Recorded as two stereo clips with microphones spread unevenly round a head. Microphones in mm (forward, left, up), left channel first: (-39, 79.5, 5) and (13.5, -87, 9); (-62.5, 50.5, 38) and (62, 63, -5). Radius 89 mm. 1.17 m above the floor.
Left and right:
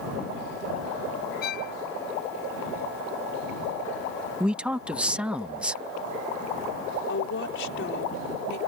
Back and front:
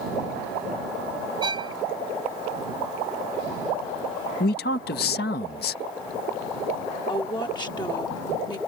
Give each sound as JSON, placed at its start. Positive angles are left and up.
{"t": 1.4, "sound": "a violin", "azimuth_deg": 65}
{"t": 4.4, "sound": "a man speaking", "azimuth_deg": -160}
{"t": 7.1, "sound": "a woman speaking", "azimuth_deg": 125}